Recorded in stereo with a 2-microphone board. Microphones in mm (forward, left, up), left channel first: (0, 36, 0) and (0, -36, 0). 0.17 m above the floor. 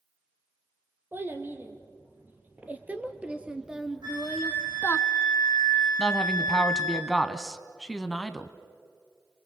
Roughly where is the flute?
Right.